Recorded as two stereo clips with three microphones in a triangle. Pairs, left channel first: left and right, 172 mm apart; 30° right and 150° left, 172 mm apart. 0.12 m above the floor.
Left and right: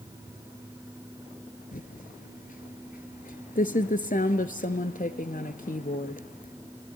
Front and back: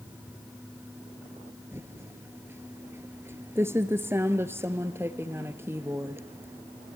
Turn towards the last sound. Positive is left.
turn(degrees=80)